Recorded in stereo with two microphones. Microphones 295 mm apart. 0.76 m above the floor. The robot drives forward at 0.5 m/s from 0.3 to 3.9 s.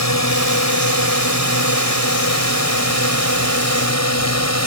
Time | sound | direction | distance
0.0 | a drone | 60° left (ahead or behind) | ?